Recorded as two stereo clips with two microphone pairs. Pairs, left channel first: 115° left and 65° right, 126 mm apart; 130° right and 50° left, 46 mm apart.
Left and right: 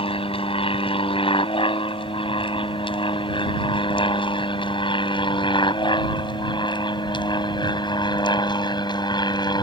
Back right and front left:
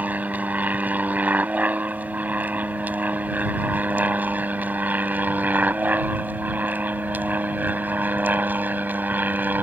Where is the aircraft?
90° left; by 9.6 s 75° left.